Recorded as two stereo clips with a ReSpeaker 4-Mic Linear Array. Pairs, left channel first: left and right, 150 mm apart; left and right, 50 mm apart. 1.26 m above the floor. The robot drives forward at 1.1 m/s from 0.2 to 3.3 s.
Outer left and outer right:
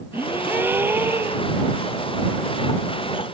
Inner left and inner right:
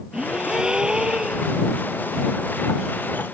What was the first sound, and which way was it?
A gasp, 15° right (ahead or behind).